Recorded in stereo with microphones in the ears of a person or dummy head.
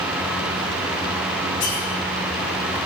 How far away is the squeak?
About 2.5 m.